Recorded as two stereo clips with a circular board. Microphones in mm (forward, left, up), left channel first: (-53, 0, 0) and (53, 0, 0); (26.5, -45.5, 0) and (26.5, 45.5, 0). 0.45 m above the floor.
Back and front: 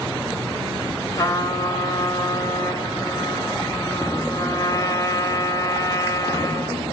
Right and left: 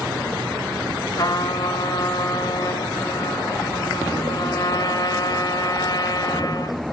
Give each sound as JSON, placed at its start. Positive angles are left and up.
{"t": 1.1, "sound": "a trumpet", "azimuth_deg": -125, "distance_m": 1.8}